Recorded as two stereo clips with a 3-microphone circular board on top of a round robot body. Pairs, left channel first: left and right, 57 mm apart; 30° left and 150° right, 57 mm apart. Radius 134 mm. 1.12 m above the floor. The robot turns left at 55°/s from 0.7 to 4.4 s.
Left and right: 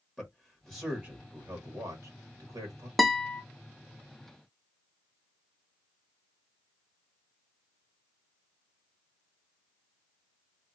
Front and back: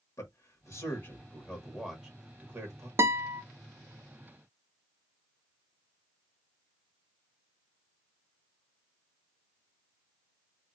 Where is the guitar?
Straight behind, 0.6 m; by 3.4 s 155° left, 0.6 m.